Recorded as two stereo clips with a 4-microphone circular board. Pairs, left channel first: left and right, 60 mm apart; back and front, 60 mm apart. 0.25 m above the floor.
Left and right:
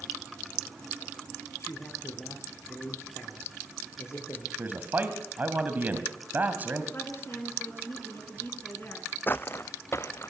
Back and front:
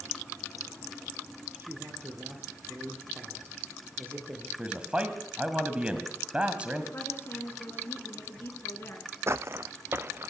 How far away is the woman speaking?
About 3 m.